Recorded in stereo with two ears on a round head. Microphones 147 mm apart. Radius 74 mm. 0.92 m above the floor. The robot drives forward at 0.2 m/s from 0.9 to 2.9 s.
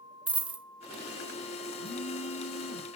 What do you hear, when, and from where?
0.3 s a dropped coin: 5° right (ahead or behind), 0.5 m
1.8 s a phone buzzing: 85° left, 2 m